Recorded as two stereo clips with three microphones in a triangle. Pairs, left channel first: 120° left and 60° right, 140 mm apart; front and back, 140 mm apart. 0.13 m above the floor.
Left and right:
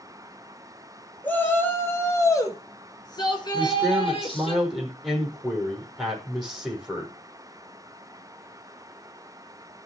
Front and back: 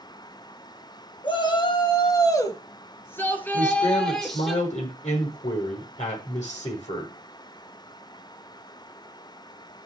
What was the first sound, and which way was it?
A shout, 45° left.